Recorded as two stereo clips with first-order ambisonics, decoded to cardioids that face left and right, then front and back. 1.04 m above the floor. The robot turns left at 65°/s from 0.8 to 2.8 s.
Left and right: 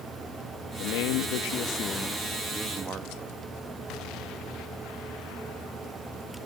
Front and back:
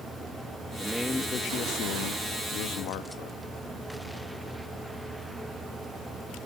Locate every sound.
0.8 s a man speaking: 100° left, 1.4 m; by 3.4 s 30° right, 1.4 m